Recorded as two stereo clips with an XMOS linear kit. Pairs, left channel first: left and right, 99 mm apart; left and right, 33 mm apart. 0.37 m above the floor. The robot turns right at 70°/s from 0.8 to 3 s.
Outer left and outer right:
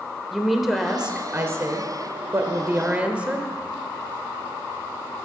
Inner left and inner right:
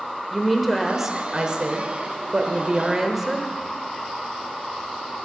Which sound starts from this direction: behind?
A woman speaking, at 0.3 s.